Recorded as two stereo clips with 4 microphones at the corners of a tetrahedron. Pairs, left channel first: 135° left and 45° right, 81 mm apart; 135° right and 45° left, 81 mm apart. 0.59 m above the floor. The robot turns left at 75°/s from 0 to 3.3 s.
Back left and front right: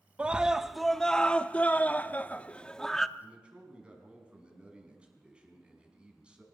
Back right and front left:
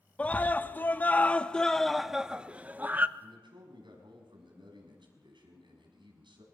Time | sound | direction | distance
0.2 | a scream | 90° right | 0.7 m
3.2 | a man speaking | 40° left | 5.5 m